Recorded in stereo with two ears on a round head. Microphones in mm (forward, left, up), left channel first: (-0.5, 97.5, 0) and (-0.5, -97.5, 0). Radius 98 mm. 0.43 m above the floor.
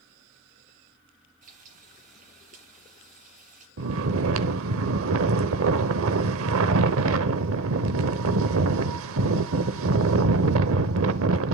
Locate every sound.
1.4 s frying: 35° right (ahead or behind), 6.5 m
3.8 s snoring: 65° right (ahead or behind), 0.8 m